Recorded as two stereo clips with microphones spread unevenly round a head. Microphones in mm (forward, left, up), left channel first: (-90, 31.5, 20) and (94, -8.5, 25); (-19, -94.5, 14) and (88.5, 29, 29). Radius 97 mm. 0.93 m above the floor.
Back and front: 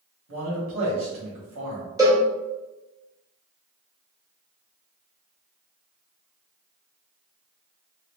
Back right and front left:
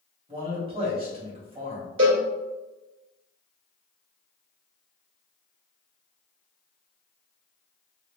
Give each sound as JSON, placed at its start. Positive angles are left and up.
{"t": 0.3, "sound": "a man speaking", "azimuth_deg": -10, "distance_m": 1.9}
{"t": 2.0, "sound": "a cowbell", "azimuth_deg": 60, "distance_m": 1.7}